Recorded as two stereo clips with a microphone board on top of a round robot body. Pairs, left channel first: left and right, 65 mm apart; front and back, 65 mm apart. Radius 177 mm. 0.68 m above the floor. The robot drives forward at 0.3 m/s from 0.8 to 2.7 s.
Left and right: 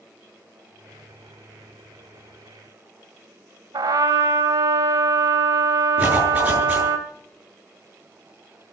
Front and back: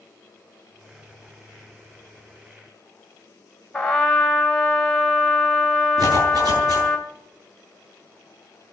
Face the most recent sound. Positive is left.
turn(degrees=-165)